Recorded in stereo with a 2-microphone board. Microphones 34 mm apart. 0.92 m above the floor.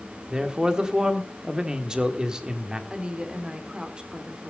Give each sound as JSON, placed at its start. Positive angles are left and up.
{"t": 0.3, "sound": "a man speaking", "side_deg": -20, "distance_m": 1.8}
{"t": 2.9, "sound": "a woman speaking", "side_deg": -25, "distance_m": 2.5}